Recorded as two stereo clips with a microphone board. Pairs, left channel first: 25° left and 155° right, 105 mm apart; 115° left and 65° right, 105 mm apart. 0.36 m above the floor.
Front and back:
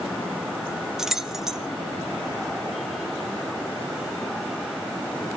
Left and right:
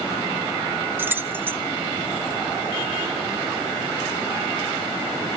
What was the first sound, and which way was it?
Keys jangling, 80° right.